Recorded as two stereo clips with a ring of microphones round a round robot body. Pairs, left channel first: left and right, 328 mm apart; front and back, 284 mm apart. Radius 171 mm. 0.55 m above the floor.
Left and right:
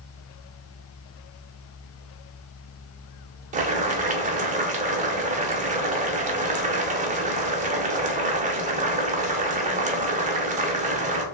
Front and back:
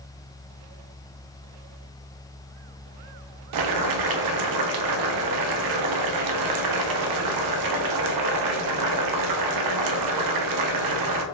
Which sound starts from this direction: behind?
Boiling, at 3.5 s.